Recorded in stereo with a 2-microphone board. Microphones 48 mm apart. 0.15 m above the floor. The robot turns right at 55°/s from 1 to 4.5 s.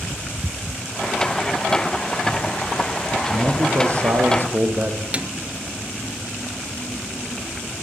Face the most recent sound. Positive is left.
turn(degrees=-25)  # may be behind; listen again after turning